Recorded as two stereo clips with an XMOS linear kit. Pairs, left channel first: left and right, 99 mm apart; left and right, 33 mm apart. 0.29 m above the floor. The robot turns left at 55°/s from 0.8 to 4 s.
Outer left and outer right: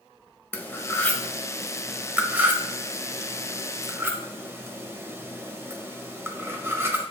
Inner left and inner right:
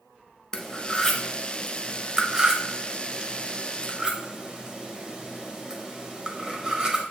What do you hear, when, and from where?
0.5 s cutlery clinking: 20° left (ahead or behind), 0.7 m; by 7.0 s 20° right (ahead or behind), 0.7 m